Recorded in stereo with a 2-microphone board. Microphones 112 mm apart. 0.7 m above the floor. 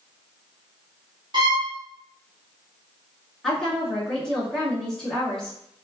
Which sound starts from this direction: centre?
A woman speaking, at 3.4 s.